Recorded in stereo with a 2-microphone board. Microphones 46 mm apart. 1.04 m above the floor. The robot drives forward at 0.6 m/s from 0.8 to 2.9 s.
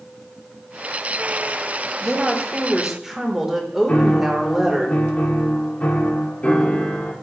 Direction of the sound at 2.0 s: 15° right (ahead or behind).